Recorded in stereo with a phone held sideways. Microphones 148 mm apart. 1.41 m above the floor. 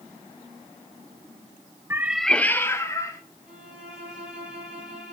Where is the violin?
5° right (ahead or behind), 8 m.